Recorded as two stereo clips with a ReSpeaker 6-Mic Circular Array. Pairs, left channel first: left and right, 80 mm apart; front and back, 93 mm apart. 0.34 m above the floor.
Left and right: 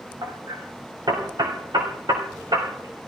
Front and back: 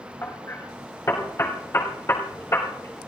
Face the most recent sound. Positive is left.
turn(degrees=-60)